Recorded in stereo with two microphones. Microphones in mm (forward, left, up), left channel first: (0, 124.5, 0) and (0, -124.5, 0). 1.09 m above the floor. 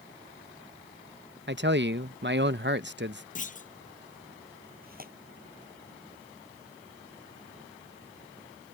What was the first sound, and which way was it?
A man speaking, 50° right (ahead or behind).